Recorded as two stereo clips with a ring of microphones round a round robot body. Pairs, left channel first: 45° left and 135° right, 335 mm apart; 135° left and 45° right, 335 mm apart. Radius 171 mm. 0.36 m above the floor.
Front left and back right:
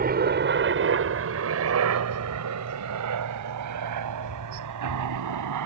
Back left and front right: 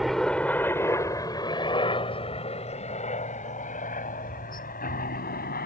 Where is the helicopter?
135° right; by 5.7 s 165° right.